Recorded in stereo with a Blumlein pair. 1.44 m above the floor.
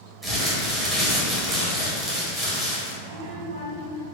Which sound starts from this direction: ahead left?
A child speaking, at 3.0 s.